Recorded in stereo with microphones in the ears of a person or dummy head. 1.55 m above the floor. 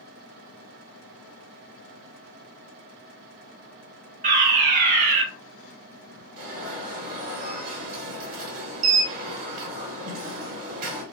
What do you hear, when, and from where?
4.2 s a fire alarm: 40° right (ahead or behind), 1.0 m
6.4 s an alarm: 45° right (ahead or behind), 1.0 m